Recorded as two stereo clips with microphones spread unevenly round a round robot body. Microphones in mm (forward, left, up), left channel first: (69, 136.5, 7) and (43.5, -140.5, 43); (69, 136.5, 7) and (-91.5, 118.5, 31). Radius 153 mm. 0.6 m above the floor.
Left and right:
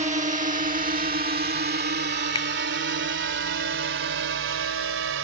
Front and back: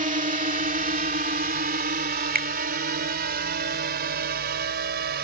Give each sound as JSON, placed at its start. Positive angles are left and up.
{"t": 0.0, "sound": "a drone", "azimuth_deg": -160}
{"t": 2.4, "sound": "a finger snap", "azimuth_deg": 160}